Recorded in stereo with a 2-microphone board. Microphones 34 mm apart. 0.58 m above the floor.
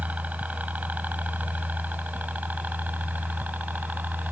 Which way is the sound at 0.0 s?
50° right (ahead or behind).